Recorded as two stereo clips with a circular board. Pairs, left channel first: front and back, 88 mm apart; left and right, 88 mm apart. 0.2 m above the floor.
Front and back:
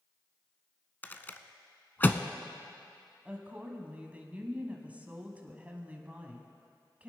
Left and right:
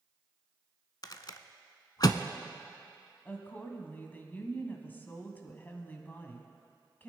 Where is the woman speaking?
130° left, 1.4 m.